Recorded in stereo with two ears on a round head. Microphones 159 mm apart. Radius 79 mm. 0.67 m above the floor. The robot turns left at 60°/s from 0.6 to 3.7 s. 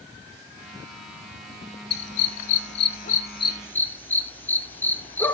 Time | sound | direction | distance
1.9 | a dog barking | 60° left (ahead or behind) | 1.1 m